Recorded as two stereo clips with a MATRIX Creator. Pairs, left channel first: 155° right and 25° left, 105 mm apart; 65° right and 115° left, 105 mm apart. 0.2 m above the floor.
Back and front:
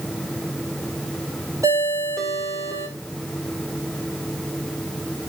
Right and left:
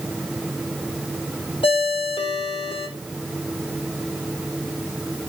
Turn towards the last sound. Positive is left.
turn(degrees=-35)